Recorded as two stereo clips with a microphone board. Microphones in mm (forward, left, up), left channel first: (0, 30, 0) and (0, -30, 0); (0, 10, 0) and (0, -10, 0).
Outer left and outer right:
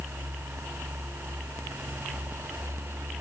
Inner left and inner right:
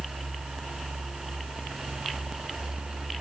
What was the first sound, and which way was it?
Only background noise.